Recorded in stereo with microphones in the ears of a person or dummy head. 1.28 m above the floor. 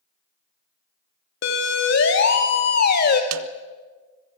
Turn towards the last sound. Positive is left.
turn(degrees=-75)  # may be behind; listen again after turning